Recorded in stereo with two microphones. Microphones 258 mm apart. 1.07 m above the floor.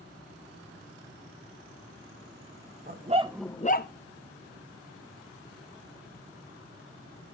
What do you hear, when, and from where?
2.9 s a dog barking: 35° right (ahead or behind), 1.0 m; by 3.9 s 45° left (ahead or behind), 0.8 m